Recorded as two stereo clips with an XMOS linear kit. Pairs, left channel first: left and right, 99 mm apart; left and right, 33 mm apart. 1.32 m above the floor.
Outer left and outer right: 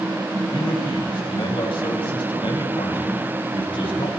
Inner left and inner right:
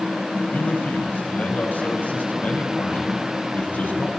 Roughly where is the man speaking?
Left.